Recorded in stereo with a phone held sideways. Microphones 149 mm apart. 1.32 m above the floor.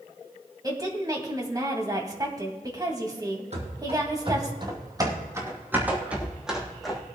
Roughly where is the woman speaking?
Right.